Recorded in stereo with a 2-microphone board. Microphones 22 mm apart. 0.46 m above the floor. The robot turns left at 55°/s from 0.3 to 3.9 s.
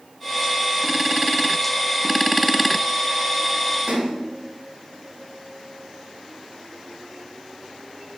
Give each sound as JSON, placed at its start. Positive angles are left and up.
{"t": 3.9, "sound": "a splash", "side_deg": -50, "distance_m": 1.9}